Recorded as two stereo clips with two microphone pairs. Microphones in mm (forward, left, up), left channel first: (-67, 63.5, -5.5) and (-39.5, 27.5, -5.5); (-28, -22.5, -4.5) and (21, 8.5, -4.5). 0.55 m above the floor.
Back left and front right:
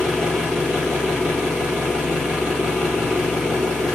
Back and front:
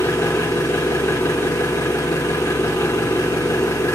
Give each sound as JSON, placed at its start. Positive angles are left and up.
{"t": 0.0, "sound": "an engine running", "azimuth_deg": -140, "distance_m": 3.5}